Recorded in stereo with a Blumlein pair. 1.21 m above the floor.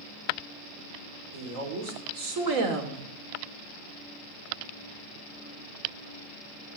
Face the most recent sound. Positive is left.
turn(degrees=-45)